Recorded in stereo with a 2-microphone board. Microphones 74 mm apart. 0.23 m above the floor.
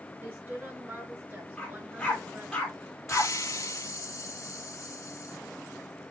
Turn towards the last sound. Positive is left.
turn(degrees=45)  # may be behind; listen again after turning